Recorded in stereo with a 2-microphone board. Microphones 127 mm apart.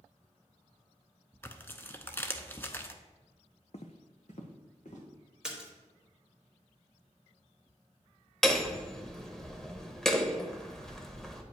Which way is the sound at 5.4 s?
5° right (ahead or behind).